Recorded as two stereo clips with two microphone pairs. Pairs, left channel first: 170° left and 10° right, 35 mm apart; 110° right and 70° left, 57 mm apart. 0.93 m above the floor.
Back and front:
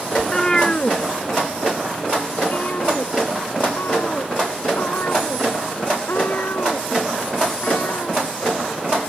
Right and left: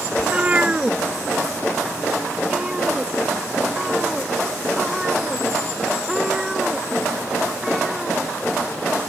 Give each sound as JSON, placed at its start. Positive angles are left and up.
{"t": 0.2, "sound": "a cat meowing", "azimuth_deg": 100}